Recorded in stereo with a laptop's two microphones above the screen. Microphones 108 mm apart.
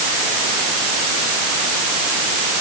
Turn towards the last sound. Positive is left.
No sound to turn to.